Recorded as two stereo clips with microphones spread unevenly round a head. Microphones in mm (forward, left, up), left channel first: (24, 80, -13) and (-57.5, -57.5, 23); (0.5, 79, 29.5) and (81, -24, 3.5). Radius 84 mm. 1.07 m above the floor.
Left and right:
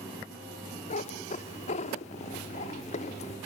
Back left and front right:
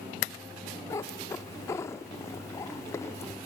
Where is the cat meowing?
95° left, 0.7 m.